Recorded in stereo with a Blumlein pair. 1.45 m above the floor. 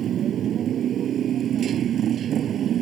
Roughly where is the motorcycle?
Ahead right.